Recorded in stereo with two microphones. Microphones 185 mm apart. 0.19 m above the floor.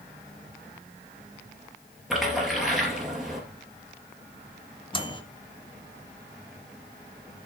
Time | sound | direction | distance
2.1 | a splash | centre (ahead or behind) | 2.5 m
4.9 | a microwave | 25° left (ahead or behind) | 1.2 m